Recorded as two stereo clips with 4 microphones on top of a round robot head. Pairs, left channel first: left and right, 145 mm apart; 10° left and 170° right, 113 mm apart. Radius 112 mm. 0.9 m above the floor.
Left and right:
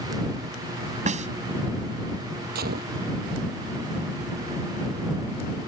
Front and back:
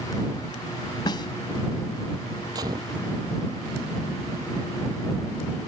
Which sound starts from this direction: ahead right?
A snare drum, at 1.1 s.